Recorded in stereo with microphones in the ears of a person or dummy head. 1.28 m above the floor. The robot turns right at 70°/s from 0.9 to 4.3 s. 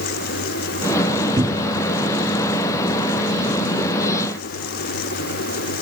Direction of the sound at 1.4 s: 25° right (ahead or behind).